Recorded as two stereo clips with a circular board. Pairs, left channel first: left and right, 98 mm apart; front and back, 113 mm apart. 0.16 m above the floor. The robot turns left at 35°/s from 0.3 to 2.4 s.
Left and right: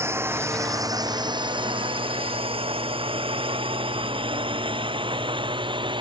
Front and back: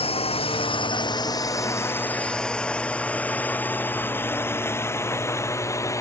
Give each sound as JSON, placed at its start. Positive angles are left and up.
{"t": 0.0, "sound": "a drone", "azimuth_deg": -30}